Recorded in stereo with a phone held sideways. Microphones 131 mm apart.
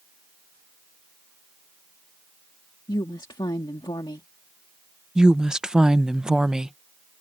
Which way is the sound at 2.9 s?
35° left (ahead or behind).